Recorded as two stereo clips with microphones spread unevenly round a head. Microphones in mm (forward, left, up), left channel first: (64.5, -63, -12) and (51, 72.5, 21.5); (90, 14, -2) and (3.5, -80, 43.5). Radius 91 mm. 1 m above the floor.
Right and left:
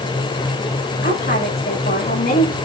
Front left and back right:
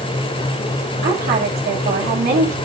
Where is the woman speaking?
130° right, 7 m.